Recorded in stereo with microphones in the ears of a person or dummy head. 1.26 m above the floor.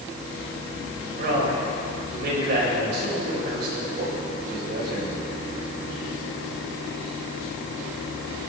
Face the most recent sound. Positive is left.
turn(degrees=-55)  # may be behind; listen again after turning